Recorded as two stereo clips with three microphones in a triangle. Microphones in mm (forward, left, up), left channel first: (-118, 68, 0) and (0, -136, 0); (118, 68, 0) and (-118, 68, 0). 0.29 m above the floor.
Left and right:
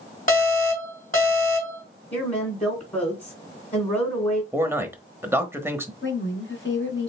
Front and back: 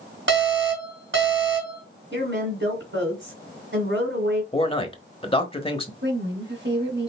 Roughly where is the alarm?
Behind.